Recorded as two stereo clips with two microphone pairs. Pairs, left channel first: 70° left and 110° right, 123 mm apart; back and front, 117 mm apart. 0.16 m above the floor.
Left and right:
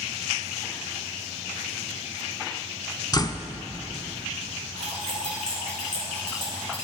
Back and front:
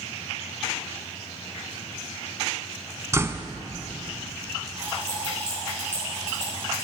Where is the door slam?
50° left, 0.8 m.